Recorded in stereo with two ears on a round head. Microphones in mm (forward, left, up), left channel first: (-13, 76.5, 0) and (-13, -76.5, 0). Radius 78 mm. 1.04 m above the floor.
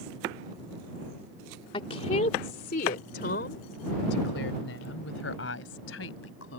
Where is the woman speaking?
30° left (ahead or behind); by 6.6 s 75° left (ahead or behind).